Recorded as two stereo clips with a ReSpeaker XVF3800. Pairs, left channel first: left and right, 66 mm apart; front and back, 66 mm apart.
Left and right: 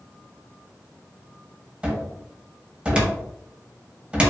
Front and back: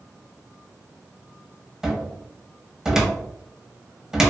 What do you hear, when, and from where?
1.8 s a cupboard door: 110° right, 0.6 m